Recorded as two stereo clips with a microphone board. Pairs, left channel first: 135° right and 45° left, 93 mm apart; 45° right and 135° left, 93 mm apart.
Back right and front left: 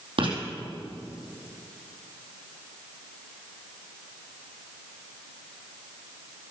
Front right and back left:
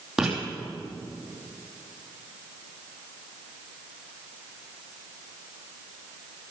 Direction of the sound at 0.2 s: 50° left.